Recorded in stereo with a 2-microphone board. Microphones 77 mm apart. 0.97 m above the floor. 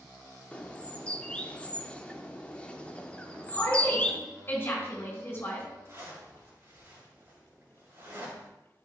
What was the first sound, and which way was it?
A bird, 20° left (ahead or behind).